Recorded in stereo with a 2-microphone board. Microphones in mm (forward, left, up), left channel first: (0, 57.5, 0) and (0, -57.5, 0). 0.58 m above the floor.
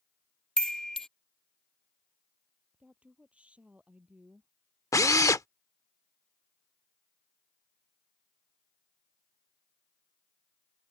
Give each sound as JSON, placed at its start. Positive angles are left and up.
{"t": 0.6, "sound": "a chime", "side_deg": 5}
{"t": 2.7, "sound": "a woman speaking", "side_deg": -10}
{"t": 4.9, "sound": "a drill", "side_deg": 30}